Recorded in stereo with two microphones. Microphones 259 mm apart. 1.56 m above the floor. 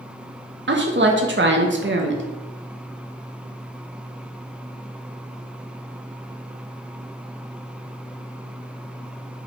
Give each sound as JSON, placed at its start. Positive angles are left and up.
{"t": 0.7, "sound": "a woman speaking", "side_deg": -45, "distance_m": 0.5}